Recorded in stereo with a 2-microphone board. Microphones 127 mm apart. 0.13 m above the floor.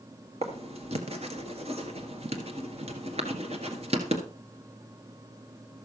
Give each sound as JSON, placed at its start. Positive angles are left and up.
{"t": 0.4, "sound": "writing", "side_deg": -55, "distance_m": 1.8}